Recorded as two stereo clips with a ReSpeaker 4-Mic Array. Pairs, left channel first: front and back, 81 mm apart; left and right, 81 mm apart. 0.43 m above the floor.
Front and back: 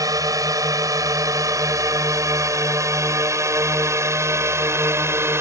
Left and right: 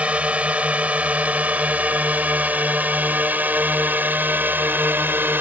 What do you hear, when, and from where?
0.0 s a drone: 160° right; by 5.4 s 140° right